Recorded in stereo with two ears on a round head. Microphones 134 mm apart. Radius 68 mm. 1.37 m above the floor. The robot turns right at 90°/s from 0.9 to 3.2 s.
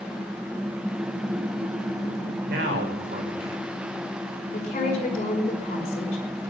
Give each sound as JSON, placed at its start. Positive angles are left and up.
{"t": 2.5, "sound": "a man speaking", "azimuth_deg": -105, "distance_m": 6.0}
{"t": 4.5, "sound": "a woman speaking", "side_deg": 45, "distance_m": 5.5}